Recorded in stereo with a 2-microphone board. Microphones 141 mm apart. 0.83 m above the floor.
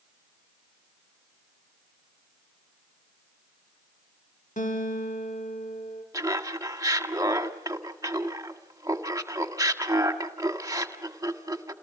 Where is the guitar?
70° left (ahead or behind), 2.5 m.